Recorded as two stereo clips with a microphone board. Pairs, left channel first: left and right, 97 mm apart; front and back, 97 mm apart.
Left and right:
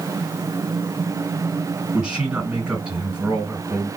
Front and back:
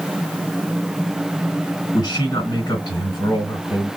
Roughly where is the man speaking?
Ahead right.